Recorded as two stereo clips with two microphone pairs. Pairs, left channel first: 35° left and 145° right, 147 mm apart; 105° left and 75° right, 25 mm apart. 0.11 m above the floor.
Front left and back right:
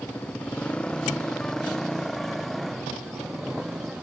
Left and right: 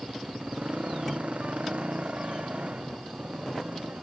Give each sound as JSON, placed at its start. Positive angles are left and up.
{"t": 0.0, "sound": "a motorcycle", "azimuth_deg": -45}